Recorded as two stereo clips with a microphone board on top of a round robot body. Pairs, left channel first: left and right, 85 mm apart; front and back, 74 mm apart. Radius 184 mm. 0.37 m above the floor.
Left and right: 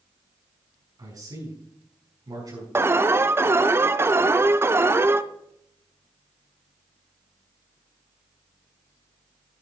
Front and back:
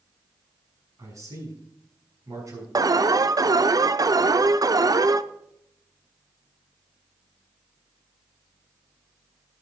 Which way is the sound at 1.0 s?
135° right.